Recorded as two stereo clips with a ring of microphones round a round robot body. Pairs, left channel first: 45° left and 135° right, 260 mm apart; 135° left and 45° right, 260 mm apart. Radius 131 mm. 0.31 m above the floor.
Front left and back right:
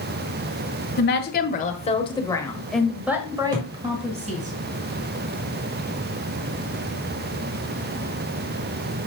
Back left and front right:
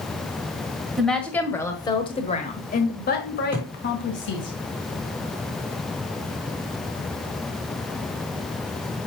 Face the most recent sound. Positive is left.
turn(degrees=-130)